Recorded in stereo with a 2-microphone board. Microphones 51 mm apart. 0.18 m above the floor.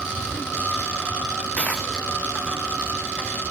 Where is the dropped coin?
25° left (ahead or behind), 2.5 m.